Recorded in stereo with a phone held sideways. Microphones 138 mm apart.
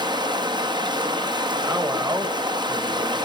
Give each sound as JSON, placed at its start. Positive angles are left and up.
{"t": 0.0, "sound": "running water", "side_deg": -30, "distance_m": 1.0}
{"t": 1.6, "sound": "a man speaking", "side_deg": -30, "distance_m": 1.2}